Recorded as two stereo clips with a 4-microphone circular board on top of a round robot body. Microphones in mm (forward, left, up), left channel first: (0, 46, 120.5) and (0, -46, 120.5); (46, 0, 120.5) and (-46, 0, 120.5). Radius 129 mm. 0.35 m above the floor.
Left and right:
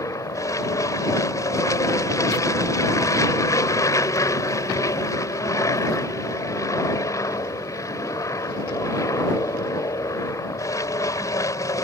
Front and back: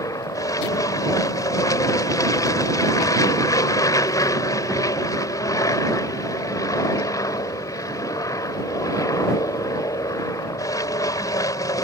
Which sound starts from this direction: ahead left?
An aircraft, at 0.0 s.